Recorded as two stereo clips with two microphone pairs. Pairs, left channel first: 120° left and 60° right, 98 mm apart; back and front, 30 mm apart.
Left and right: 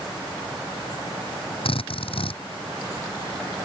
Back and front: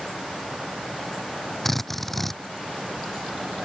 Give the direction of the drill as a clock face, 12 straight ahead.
9 o'clock.